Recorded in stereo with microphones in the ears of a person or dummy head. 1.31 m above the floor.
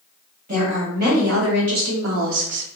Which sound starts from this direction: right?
A woman speaking, at 0.5 s.